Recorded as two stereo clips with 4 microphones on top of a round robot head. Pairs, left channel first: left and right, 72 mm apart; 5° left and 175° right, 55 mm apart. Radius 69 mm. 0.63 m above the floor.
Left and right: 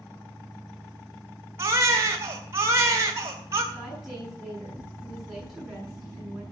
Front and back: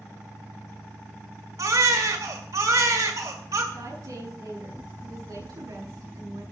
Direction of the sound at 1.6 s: 145° right.